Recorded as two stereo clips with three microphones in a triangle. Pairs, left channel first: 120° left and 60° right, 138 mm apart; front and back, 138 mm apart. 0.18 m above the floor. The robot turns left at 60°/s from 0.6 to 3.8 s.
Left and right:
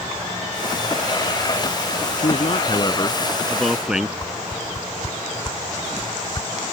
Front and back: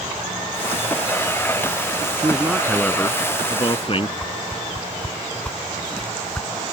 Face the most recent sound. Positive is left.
turn(degrees=75)